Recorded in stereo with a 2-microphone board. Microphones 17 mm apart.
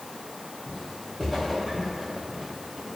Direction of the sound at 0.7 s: 10° left (ahead or behind).